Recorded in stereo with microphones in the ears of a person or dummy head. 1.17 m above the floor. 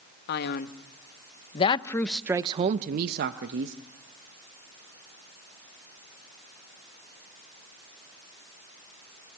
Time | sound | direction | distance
0.3 | a man speaking | 60° left (ahead or behind) | 1.2 m